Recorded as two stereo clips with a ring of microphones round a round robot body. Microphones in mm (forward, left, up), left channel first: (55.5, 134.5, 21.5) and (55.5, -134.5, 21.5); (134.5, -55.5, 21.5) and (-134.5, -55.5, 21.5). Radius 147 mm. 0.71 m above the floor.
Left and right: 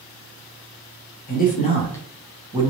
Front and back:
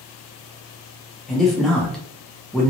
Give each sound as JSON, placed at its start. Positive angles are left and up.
{"t": 1.3, "sound": "a man speaking", "azimuth_deg": 90, "distance_m": 1.1}